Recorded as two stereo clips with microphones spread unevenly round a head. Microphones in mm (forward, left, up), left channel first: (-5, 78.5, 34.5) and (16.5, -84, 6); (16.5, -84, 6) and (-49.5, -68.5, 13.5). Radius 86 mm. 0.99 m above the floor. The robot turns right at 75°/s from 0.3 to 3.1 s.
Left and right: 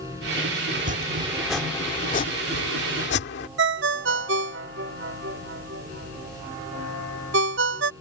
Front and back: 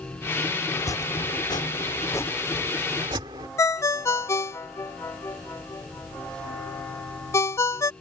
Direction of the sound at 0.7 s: 55° right.